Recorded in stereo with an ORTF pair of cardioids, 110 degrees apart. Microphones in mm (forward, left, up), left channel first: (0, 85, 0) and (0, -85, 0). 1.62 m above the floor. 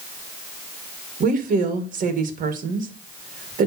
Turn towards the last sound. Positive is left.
turn(degrees=-50)